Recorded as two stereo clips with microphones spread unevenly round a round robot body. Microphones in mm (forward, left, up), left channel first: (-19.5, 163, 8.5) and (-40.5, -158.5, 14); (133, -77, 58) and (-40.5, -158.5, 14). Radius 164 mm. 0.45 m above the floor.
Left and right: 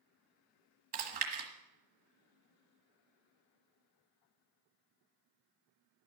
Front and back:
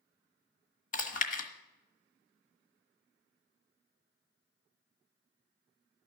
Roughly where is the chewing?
Ahead right.